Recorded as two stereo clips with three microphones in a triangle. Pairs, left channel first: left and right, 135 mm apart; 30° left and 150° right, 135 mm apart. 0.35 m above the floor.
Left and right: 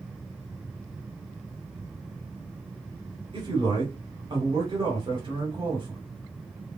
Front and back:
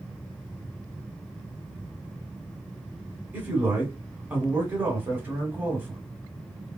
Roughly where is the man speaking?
Right.